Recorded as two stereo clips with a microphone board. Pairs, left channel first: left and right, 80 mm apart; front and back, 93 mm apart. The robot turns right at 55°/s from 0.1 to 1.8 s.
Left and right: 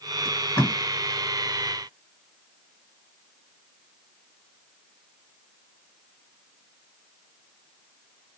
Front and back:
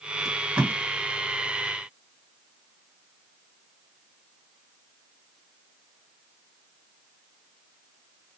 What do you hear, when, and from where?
0.2 s tape being pulled: 95° left, 1.7 m; by 0.7 s 120° left, 1.7 m